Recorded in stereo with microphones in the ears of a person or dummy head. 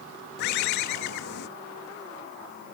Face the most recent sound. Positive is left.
turn(degrees=65)  # may be behind; listen again after turning